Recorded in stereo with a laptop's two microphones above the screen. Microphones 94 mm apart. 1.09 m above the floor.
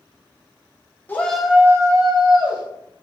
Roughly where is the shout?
Left.